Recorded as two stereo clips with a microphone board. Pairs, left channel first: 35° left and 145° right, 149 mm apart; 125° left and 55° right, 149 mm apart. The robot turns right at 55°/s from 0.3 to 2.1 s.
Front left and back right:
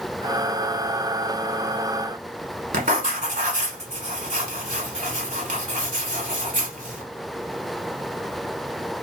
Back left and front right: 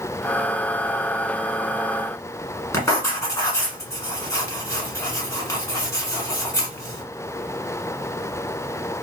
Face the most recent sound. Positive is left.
turn(degrees=-165)